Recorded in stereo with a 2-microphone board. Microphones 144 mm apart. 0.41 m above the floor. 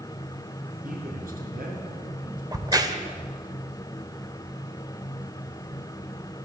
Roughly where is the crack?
Right.